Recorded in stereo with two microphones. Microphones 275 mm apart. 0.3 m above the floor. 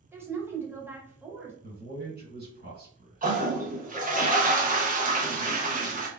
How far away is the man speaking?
About 1.9 m.